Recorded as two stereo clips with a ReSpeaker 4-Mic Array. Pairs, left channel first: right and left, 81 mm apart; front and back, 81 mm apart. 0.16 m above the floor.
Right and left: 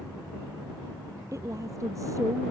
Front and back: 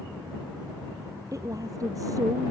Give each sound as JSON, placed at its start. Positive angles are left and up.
{"t": 1.3, "sound": "a woman speaking", "azimuth_deg": 135}